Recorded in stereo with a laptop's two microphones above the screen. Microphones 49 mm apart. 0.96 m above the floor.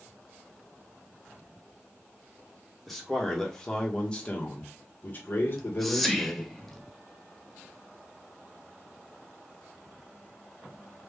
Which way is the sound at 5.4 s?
5° left (ahead or behind).